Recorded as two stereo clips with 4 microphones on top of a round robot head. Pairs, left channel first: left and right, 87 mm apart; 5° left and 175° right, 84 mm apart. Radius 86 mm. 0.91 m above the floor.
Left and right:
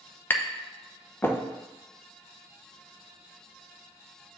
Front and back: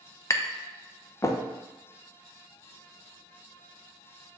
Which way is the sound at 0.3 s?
35° left.